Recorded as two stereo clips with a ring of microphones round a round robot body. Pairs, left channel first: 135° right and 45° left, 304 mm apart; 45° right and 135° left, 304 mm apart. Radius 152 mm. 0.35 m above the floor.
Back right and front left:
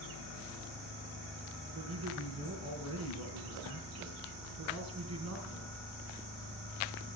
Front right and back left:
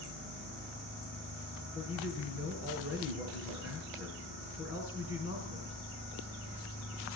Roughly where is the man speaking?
Ahead.